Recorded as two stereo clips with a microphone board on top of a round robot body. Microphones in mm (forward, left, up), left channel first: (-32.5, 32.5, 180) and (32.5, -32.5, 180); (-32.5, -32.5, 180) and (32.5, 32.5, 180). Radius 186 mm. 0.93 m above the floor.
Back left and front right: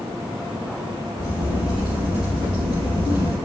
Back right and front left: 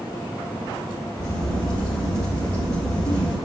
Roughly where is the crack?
Right.